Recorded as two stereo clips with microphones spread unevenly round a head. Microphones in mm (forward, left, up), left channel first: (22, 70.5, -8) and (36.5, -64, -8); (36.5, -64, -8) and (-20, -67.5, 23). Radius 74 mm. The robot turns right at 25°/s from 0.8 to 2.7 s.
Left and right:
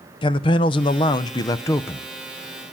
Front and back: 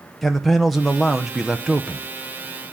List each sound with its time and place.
0.2 s a man speaking: 130° left, 0.5 m; by 2.1 s 165° left, 0.5 m